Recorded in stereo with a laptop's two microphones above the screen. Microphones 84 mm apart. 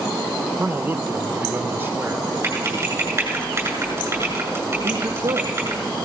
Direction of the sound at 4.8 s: 65° right (ahead or behind).